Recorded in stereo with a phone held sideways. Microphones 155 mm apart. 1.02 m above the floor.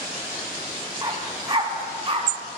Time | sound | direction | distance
1.0 | a dog barking | 30° right (ahead or behind) | 3 m